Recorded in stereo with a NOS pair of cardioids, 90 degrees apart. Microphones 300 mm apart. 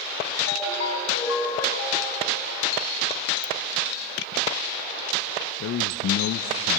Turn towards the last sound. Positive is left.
turn(degrees=50)